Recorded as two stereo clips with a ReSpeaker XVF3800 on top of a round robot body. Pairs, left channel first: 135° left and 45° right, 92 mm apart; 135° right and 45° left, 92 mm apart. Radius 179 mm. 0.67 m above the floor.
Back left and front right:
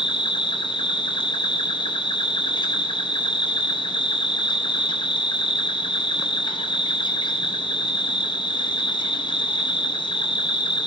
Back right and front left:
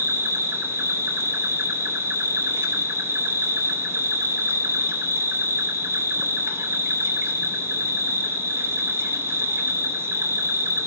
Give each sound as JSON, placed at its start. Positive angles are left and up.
{"t": 0.0, "sound": "an insect", "azimuth_deg": 105, "distance_m": 0.7}